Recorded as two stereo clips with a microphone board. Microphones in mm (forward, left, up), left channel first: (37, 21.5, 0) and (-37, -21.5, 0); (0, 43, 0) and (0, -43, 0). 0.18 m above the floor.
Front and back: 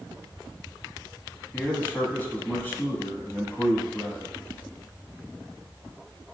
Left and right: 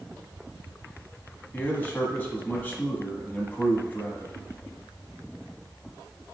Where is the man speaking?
55° left, 1.1 m.